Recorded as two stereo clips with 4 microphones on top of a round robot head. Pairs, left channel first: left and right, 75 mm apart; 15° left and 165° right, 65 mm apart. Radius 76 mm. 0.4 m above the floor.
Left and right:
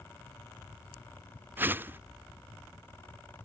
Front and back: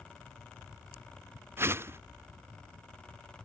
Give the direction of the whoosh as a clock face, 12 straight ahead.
5 o'clock.